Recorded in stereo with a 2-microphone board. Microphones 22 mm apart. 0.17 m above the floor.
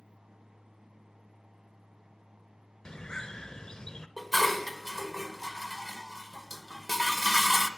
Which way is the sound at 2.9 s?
35° left (ahead or behind).